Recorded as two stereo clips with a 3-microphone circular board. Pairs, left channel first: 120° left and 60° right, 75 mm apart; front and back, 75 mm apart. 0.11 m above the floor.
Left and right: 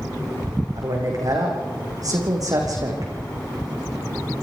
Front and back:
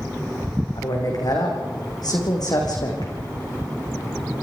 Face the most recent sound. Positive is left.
turn(degrees=-25)